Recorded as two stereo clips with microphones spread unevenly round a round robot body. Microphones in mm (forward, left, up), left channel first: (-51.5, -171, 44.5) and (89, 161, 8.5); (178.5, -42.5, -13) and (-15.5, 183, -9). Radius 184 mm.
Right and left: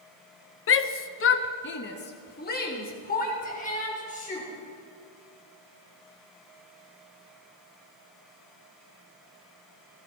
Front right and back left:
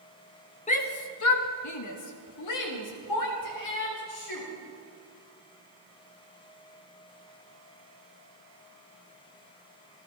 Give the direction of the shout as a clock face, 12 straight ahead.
3 o'clock.